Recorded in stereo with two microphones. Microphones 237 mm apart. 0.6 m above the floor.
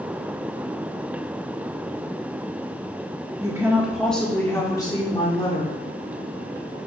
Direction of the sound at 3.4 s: 15° right (ahead or behind).